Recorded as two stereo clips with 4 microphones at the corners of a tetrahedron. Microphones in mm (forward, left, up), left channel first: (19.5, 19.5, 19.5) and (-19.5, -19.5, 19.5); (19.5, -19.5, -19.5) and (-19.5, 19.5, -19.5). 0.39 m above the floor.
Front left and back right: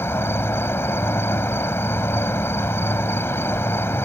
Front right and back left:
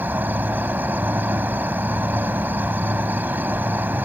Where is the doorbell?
No doorbell in this recording.